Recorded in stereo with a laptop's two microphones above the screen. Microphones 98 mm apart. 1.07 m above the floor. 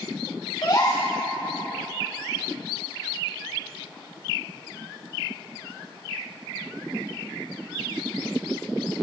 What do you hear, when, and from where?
0.6 s a gasp: 45° left (ahead or behind), 2.5 m